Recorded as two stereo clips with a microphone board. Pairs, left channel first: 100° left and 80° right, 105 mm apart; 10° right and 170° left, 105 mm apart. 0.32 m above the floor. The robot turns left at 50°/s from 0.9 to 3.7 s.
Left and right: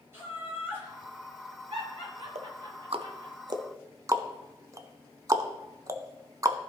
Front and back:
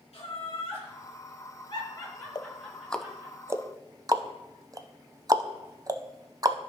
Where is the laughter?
10° right, 4 m; by 3.4 s 135° right, 4 m.